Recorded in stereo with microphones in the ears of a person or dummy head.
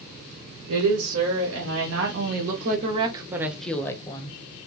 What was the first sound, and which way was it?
A woman speaking, 80° right.